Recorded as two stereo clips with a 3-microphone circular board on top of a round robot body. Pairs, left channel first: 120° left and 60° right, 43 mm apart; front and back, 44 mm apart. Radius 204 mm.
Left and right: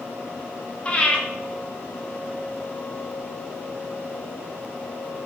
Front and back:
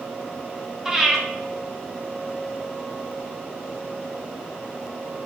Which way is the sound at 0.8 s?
115° left.